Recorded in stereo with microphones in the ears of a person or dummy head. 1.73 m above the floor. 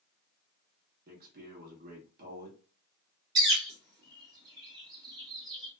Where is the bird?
20° right (ahead or behind), 0.9 m.